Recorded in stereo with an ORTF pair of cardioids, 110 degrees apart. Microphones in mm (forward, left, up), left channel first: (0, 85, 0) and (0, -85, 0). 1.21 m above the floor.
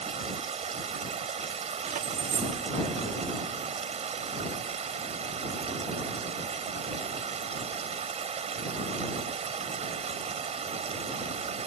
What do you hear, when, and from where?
0.0 s running water: 40° right
1.8 s keys jangling: 50° right